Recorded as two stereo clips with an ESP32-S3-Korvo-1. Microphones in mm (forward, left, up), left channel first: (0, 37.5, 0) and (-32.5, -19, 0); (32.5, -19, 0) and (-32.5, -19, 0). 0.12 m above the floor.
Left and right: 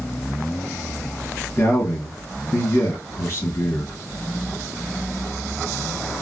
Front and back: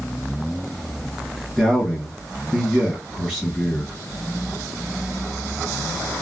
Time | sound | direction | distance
1.6 | a man speaking | 75° left | 1.9 m